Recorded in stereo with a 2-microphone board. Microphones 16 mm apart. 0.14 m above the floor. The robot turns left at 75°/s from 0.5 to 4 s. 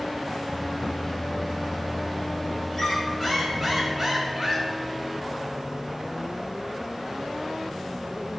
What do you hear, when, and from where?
2.7 s a squeak: 65° left, 0.8 m; by 4.7 s 30° right, 0.8 m